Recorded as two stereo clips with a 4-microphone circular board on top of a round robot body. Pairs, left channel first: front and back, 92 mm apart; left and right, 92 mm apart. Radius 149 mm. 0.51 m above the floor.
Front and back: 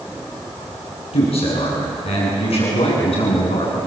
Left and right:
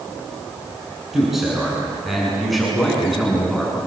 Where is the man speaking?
Straight ahead, 9 m; by 3.8 s 5° left, 8 m.